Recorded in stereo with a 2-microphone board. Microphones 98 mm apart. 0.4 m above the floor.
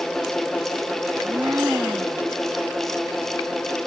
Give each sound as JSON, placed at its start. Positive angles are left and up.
{"t": 1.1, "sound": "a blender", "side_deg": -25}